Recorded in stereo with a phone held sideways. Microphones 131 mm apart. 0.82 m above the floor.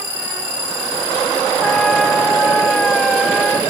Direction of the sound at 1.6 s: Centre (ahead or behind).